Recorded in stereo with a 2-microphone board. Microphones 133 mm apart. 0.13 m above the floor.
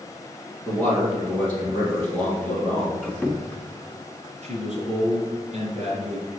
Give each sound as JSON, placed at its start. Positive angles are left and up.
{"t": 0.7, "sound": "a man speaking", "side_deg": 10, "distance_m": 3.0}
{"t": 3.0, "sound": "a squeak", "side_deg": 10, "distance_m": 0.7}
{"t": 4.4, "sound": "a man speaking", "side_deg": -50, "distance_m": 3.0}